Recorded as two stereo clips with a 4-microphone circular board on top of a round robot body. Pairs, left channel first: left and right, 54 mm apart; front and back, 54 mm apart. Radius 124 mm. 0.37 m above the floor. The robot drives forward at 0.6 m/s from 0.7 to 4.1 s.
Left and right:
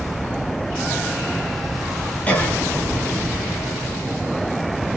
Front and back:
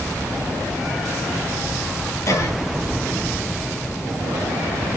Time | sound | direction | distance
2.3 | a cough | 25° left | 4.5 m